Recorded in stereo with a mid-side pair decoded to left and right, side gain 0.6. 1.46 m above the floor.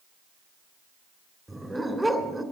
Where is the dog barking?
5° right, 2.5 m.